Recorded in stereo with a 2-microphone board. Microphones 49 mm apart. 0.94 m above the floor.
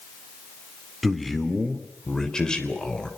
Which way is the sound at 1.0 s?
Centre (ahead or behind).